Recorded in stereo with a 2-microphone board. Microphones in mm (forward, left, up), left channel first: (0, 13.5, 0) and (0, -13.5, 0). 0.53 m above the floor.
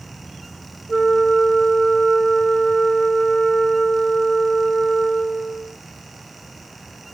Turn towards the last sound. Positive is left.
turn(degrees=25)  # may be behind; listen again after turning